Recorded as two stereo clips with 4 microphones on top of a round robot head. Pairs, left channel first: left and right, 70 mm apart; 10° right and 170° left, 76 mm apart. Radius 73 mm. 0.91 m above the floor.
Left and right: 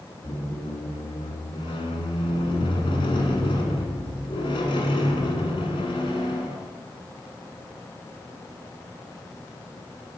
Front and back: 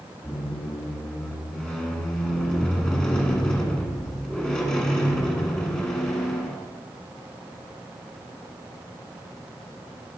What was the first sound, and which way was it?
A squeak, 70° left.